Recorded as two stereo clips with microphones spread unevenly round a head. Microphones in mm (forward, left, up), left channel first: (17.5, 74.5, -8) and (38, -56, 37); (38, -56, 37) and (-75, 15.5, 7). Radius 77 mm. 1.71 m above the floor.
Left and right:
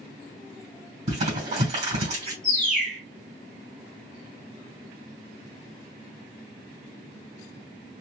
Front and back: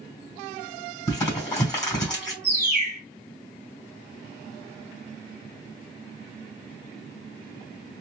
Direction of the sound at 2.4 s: 70° left.